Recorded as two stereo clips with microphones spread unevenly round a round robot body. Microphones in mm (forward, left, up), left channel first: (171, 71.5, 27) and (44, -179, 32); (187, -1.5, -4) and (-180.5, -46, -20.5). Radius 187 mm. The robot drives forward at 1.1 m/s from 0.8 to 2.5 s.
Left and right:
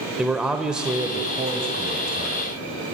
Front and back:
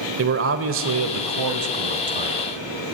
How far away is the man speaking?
About 1.0 m.